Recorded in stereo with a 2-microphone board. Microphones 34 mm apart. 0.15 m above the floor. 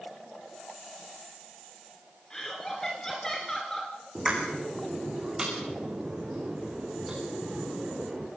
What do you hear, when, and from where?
2.3 s laughter: 20° left (ahead or behind), 1.8 m
4.2 s a pop: 20° right (ahead or behind), 5 m